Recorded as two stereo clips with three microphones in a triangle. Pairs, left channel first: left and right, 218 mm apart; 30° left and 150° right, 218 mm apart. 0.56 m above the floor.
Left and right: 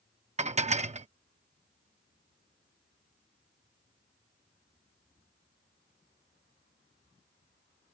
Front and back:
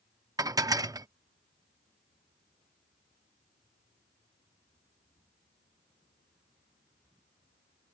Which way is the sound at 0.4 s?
90° right.